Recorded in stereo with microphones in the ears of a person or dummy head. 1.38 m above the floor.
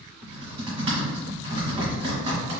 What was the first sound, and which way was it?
Typing on a keyboard, 30° right (ahead or behind).